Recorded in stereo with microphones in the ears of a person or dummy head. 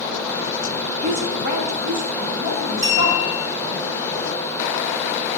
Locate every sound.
1.0 s a woman speaking: 35° right (ahead or behind), 1.5 m; by 3.8 s 50° right (ahead or behind), 3 m
2.8 s a clink: 35° right (ahead or behind), 4 m